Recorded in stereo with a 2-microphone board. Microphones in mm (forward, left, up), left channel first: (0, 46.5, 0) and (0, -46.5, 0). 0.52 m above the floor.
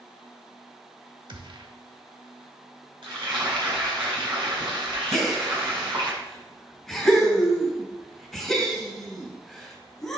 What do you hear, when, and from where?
1.3 s a gunshot: 60° right (ahead or behind), 1.0 m
3.0 s frying: 65° right (ahead or behind), 4 m
5.1 s a gasp: centre (ahead or behind), 2 m